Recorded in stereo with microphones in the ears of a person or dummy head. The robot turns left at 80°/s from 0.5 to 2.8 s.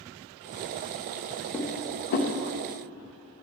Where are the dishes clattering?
5° left (ahead or behind), 0.9 m; by 2.3 s 45° left (ahead or behind), 0.9 m.